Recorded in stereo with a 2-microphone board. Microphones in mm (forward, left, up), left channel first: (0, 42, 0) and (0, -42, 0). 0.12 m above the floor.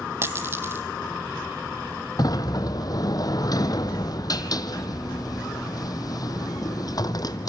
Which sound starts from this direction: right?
A dropped coin, at 0.2 s.